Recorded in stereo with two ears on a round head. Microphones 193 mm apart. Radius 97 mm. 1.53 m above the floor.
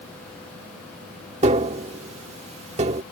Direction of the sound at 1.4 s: 30° right (ahead or behind).